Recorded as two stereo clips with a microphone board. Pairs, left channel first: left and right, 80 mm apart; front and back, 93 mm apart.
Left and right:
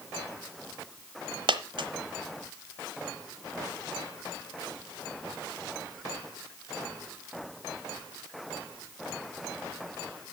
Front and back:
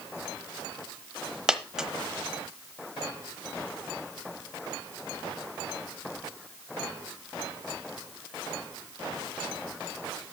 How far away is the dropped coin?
About 1.1 m.